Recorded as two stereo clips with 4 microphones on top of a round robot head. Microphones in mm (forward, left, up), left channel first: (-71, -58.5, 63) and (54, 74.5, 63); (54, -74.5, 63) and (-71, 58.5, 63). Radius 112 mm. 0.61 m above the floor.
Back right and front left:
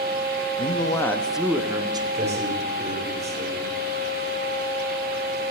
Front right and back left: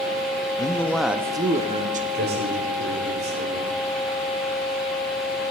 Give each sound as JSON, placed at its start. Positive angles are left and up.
{"t": 0.6, "sound": "a man speaking", "azimuth_deg": -95, "distance_m": 0.8}
{"t": 2.1, "sound": "a man speaking", "azimuth_deg": 100, "distance_m": 2.5}